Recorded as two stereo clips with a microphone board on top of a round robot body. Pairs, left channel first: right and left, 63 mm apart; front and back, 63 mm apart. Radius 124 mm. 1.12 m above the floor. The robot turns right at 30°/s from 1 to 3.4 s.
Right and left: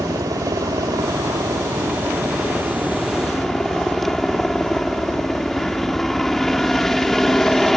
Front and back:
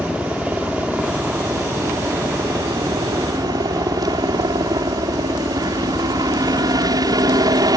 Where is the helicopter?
110° left; by 7.8 s 175° right.